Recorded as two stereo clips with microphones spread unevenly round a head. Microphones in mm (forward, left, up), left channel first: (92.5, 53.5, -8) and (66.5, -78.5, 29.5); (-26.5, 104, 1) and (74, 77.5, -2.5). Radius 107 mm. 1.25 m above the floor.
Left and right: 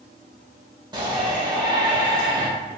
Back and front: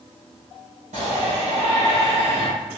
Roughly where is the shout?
Ahead right.